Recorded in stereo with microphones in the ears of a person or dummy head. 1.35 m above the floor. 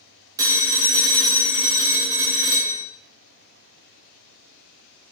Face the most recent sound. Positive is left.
turn(degrees=-15)  # may be behind; listen again after turning